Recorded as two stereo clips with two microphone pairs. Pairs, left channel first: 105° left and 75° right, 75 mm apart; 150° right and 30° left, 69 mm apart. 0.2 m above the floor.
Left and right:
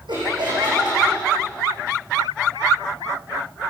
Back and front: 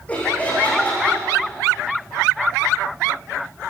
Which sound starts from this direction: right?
Laughter, at 0.1 s.